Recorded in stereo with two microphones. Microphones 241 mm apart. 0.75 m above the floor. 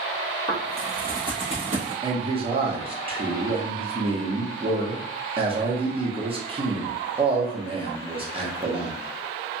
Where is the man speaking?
25° right (ahead or behind), 0.8 m.